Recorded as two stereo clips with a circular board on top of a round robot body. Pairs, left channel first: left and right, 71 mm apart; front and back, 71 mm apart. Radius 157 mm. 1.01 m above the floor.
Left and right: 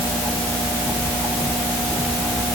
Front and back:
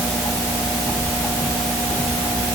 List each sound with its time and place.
Only background noise.